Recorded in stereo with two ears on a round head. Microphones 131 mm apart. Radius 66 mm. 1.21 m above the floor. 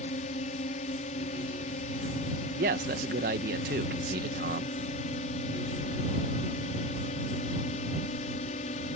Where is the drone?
45° left (ahead or behind).